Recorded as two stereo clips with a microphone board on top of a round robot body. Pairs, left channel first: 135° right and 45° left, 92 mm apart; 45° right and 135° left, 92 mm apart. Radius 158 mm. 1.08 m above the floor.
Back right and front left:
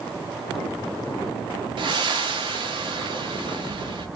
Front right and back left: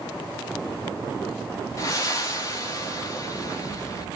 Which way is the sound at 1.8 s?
10° left.